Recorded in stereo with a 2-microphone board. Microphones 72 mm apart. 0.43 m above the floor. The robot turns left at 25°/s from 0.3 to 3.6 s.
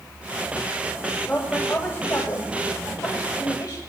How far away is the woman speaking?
About 2.0 m.